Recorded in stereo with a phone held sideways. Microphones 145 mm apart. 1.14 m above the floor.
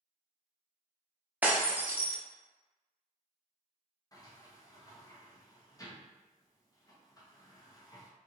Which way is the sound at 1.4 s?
10° right (ahead or behind).